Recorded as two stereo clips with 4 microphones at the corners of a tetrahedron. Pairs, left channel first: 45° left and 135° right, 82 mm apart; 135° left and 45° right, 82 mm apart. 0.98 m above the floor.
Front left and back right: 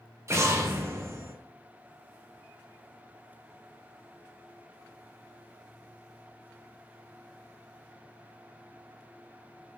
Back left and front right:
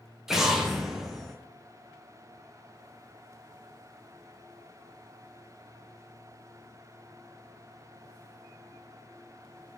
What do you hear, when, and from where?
0.3 s an explosion: 125° right, 0.9 m